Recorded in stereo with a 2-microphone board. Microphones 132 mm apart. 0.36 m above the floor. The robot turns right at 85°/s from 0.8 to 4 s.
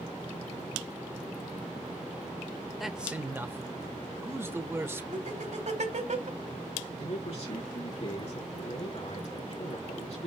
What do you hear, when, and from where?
2.8 s a man speaking: centre (ahead or behind), 1.1 m; by 5.0 s 20° right (ahead or behind), 1.1 m
5.1 s laughter: 60° right (ahead or behind), 2.5 m
7.0 s a man speaking: 55° left (ahead or behind), 5 m